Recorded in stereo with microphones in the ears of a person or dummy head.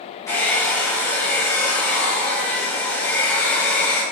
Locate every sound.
0.3 s a hair dryer: 15° left (ahead or behind), 5.5 m